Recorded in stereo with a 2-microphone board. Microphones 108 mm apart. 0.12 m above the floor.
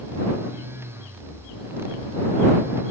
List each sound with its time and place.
Only background noise.